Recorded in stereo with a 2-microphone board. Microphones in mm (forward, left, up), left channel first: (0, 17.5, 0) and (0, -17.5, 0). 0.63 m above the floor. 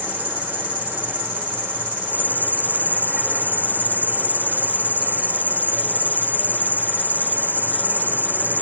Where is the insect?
65° right (ahead or behind), 4 m.